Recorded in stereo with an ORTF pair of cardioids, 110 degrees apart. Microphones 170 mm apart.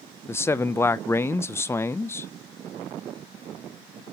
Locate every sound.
0.3 s a man speaking: 15° left, 0.8 m